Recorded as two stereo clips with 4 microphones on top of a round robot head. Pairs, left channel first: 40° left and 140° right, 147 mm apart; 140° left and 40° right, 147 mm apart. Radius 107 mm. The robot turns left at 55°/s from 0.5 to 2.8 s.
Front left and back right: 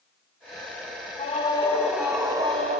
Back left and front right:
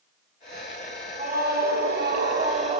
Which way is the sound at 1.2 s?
5° right.